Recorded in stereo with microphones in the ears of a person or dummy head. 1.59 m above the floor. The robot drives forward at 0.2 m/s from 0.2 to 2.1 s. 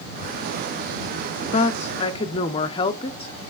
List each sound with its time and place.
1.5 s a woman speaking: 40° left (ahead or behind), 0.6 m; by 3.5 s 35° left (ahead or behind), 0.7 m